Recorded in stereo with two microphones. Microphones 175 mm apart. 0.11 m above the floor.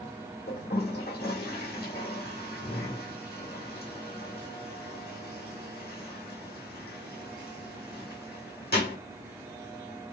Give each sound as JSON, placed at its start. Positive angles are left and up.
{"t": 0.5, "sound": "a toilet flushing", "side_deg": 65, "distance_m": 2.0}